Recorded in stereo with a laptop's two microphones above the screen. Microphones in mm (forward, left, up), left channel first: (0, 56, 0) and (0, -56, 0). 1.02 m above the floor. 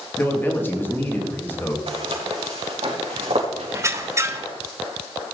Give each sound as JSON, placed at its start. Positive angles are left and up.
{"t": 0.2, "sound": "a man speaking", "side_deg": 20, "distance_m": 1.9}
{"t": 1.9, "sound": "footsteps", "side_deg": -55, "distance_m": 4.5}
{"t": 3.7, "sound": "a squeak", "side_deg": -25, "distance_m": 1.0}